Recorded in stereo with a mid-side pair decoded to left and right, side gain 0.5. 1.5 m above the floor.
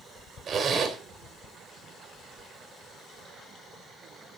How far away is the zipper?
About 3.5 m.